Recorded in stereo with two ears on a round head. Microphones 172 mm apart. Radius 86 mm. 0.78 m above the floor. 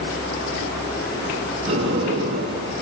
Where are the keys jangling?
I don't hear keys jangling.